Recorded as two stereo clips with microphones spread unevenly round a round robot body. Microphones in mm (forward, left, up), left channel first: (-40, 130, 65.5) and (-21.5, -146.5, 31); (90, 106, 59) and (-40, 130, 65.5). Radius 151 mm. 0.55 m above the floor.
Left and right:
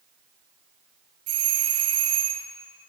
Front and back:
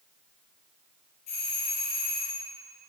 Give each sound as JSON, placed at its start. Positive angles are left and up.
{"t": 1.3, "sound": "a doorbell", "azimuth_deg": -55, "distance_m": 6.5}